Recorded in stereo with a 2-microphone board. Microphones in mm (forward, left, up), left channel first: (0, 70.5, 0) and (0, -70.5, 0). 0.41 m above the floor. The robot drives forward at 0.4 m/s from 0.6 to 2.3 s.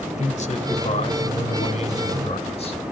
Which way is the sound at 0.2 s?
55° left (ahead or behind).